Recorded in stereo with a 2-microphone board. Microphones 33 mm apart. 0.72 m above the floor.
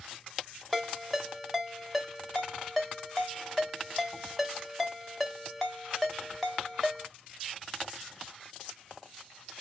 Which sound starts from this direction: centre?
A ringtone, at 0.7 s.